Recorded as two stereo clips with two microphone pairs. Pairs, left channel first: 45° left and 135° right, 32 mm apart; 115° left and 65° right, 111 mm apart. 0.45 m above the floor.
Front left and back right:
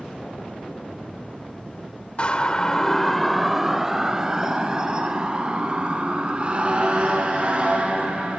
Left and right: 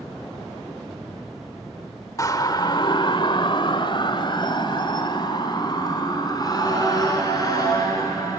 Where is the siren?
75° left, 2 m; by 8.4 s 175° left, 9 m.